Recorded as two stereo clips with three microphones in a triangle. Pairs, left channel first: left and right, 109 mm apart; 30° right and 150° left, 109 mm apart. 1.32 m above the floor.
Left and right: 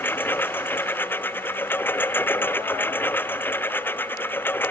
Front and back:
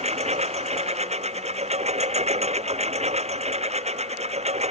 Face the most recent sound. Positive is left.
turn(degrees=160)